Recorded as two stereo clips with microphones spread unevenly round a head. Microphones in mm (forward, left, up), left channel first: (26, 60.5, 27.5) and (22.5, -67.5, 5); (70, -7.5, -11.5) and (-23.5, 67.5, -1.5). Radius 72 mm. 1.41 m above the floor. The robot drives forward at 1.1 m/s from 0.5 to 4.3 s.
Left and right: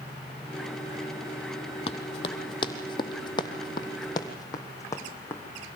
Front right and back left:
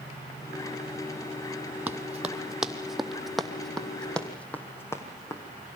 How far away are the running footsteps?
About 2 m.